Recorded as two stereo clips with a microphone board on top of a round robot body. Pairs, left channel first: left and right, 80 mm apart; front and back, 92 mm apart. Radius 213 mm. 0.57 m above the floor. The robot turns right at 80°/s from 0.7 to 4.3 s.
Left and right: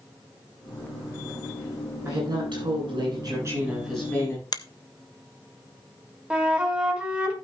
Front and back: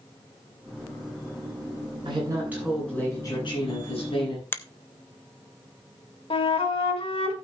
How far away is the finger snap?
About 1.1 m.